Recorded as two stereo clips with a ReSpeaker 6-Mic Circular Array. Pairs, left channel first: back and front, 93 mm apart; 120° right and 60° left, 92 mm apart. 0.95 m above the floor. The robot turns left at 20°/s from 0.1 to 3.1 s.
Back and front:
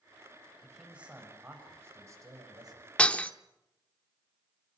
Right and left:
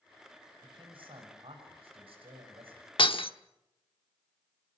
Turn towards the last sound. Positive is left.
turn(degrees=-105)